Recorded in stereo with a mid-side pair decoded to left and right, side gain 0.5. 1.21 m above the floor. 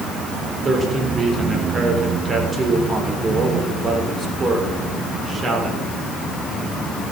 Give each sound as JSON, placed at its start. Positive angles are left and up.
{"t": 0.6, "sound": "a man speaking", "azimuth_deg": -30, "distance_m": 3.5}